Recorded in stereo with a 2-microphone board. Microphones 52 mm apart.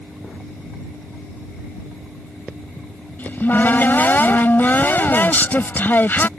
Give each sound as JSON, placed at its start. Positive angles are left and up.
{"t": 3.2, "sound": "a cupboard door", "side_deg": 40}